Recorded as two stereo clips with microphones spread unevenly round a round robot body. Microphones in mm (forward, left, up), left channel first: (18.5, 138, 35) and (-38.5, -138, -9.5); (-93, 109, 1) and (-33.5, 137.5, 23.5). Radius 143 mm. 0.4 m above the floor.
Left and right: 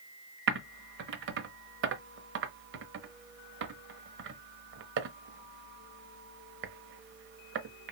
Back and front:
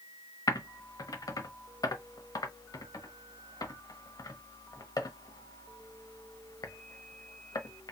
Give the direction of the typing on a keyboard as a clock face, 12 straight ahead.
5 o'clock.